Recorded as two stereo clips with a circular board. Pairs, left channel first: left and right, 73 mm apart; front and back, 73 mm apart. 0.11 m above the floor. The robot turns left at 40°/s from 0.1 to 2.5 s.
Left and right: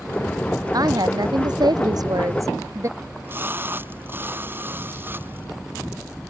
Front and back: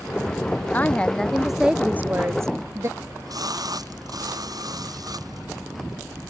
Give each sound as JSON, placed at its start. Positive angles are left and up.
{"t": 0.7, "sound": "a woman speaking", "azimuth_deg": -65}
{"t": 3.0, "sound": "a splash", "azimuth_deg": -150}